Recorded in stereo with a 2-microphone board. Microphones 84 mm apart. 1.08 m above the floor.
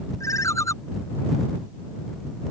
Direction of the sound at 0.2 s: 40° left (ahead or behind).